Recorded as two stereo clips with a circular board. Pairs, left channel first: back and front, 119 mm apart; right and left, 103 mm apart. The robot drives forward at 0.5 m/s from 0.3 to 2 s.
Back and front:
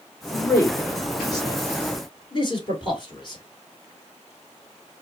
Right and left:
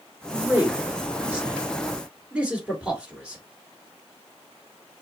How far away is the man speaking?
About 1.5 m.